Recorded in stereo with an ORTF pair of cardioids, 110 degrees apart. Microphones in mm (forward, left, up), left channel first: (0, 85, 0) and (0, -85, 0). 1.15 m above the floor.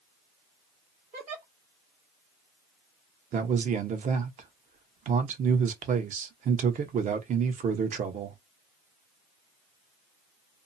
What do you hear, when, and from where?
1.1 s a giggle: 50° right, 1.2 m
3.3 s a man speaking: 45° right, 1.0 m